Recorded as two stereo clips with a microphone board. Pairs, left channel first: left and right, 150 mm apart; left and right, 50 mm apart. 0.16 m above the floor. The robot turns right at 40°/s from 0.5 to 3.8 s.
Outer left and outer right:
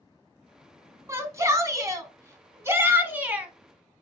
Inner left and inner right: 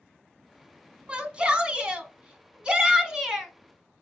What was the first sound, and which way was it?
A shout, 20° right (ahead or behind).